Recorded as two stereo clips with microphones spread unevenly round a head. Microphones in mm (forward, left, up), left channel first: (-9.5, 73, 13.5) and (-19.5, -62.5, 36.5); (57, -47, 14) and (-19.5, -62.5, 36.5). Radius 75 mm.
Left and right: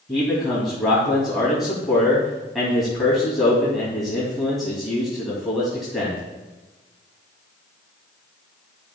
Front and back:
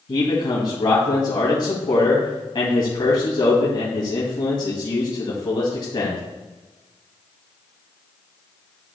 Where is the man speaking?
5° right, 2.5 m.